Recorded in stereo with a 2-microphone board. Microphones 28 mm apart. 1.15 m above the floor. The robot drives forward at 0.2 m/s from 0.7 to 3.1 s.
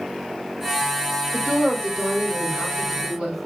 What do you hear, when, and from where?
1.3 s a woman speaking: 45° right (ahead or behind), 3.5 m; by 3.4 s 40° right (ahead or behind), 4 m